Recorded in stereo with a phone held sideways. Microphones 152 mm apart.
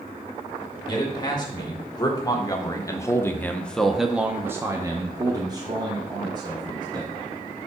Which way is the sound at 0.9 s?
25° left (ahead or behind).